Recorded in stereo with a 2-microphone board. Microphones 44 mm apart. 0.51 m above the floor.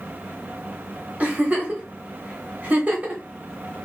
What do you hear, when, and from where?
1.2 s a giggle: 40° right (ahead or behind), 1.2 m